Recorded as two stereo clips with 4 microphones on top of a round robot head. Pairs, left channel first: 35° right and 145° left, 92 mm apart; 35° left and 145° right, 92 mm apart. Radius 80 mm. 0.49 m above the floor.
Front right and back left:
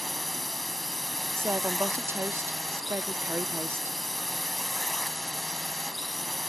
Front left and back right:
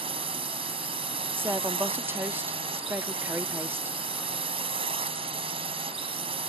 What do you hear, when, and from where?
0.0 s a drone: 125° right
1.4 s a woman speaking: 175° left